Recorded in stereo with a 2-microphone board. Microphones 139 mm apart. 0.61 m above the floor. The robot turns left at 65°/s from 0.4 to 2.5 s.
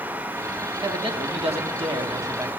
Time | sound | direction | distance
0.8 | a man speaking | 50° right | 0.9 m